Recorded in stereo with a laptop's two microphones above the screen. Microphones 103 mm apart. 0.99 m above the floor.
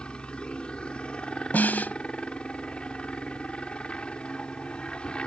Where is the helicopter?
10° left (ahead or behind).